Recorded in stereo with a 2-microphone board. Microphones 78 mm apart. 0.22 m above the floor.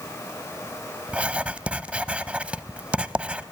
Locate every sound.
1.1 s writing: 15° right (ahead or behind), 0.5 m